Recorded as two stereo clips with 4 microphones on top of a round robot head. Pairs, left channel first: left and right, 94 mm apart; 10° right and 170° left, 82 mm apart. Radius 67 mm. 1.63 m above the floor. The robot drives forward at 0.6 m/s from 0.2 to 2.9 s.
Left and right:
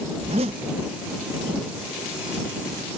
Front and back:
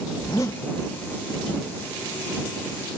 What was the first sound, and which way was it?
A zipper, 65° right.